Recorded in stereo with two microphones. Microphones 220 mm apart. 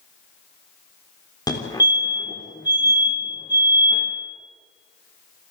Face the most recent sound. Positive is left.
turn(degrees=15)  # may be behind; listen again after turning